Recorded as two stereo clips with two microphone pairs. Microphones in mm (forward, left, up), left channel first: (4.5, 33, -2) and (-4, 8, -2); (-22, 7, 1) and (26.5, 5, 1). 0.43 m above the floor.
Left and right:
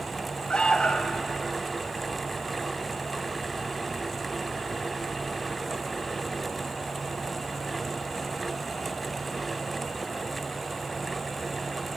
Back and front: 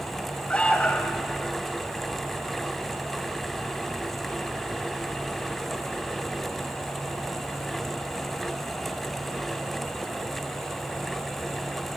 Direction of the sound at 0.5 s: 115° left.